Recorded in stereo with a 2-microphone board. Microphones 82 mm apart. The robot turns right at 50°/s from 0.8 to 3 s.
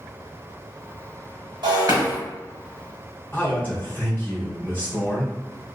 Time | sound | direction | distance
1.6 | breaking glass | 60° right (ahead or behind) | 1.2 m
3.3 | a man speaking | 25° left (ahead or behind) | 1.7 m